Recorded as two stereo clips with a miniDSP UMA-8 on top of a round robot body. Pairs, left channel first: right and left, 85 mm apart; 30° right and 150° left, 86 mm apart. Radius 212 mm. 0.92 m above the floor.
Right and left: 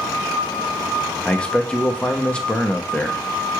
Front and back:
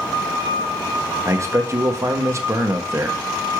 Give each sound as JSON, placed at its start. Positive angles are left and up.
{"t": 1.2, "sound": "a man speaking", "azimuth_deg": -165, "distance_m": 0.9}